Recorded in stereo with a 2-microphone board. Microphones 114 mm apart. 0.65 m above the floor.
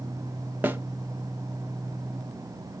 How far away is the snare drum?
About 0.6 m.